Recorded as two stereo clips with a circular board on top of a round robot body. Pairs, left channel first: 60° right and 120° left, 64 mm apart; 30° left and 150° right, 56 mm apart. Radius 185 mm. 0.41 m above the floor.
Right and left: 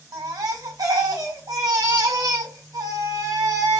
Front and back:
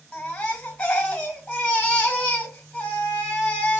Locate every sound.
0.1 s a baby crying: 100° left, 2 m